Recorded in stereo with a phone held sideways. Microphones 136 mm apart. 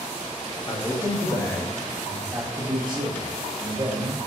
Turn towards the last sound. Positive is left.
turn(degrees=-65)  # may be behind; listen again after turning